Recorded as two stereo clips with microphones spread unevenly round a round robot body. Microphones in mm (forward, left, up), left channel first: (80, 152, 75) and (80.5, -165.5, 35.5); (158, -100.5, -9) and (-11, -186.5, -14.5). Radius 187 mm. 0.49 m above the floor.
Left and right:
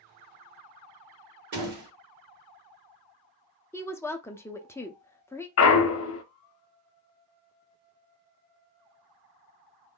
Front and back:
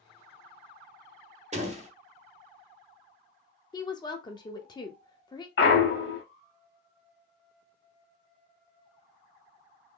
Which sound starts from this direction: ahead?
A woman speaking, at 3.7 s.